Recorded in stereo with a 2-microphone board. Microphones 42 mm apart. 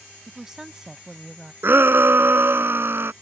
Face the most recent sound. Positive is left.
turn(degrees=-65)  # may be behind; listen again after turning